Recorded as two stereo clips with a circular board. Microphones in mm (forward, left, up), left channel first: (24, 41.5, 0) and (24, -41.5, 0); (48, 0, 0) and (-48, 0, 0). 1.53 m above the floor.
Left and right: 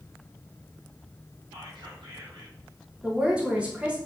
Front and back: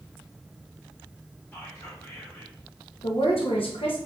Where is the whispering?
80° right, 2.5 m.